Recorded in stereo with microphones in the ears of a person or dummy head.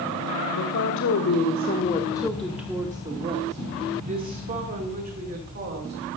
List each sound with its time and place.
0.5 s a woman speaking: 80° left, 1.3 m; by 6.1 s 50° right (ahead or behind), 3 m